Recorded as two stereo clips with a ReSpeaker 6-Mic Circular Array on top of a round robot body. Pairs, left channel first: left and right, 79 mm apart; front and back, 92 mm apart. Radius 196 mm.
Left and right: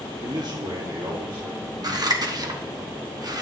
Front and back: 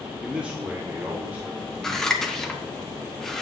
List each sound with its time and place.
0.2 s a man speaking: 100° right, 1.3 m; by 2.8 s 115° right, 4 m
1.8 s scissors: 85° right, 1.4 m